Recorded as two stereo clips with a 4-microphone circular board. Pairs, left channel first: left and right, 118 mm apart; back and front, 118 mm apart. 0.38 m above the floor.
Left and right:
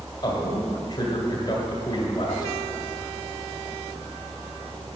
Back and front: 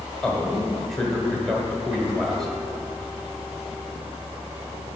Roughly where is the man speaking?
Left.